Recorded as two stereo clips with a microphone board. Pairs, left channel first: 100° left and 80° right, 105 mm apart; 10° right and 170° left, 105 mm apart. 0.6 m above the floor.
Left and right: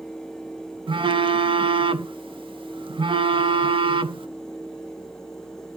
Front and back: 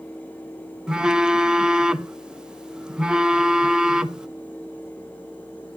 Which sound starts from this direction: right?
A phone buzzing, at 0.9 s.